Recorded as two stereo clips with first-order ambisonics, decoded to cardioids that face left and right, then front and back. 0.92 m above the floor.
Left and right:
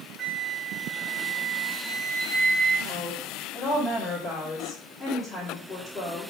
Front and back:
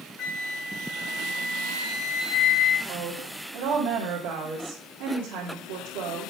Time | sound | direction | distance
0.2 | a flute | 40° right | 0.9 m
2.9 | a woman speaking | 175° left | 2.5 m